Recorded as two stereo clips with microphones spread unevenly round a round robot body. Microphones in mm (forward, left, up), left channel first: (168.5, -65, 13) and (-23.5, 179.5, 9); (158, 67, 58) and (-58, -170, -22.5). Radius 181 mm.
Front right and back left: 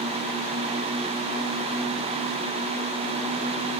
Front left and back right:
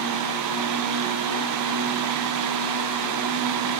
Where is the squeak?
I don't hear a squeak.